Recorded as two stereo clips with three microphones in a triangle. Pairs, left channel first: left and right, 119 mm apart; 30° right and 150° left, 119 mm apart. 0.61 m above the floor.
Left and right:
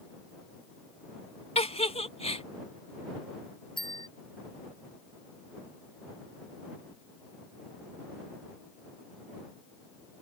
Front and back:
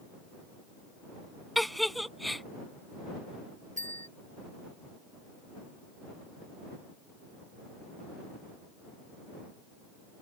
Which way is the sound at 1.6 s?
60° left.